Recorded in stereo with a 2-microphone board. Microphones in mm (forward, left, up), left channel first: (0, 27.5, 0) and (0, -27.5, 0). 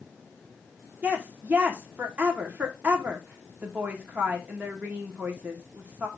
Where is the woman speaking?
25° right (ahead or behind), 1.4 m.